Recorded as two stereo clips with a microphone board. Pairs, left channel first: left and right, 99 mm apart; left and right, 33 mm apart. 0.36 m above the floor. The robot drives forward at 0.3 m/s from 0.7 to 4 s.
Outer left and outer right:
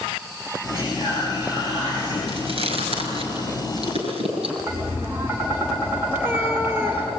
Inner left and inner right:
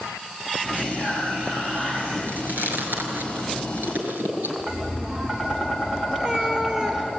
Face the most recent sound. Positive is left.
turn(degrees=-20)  # may be behind; listen again after turning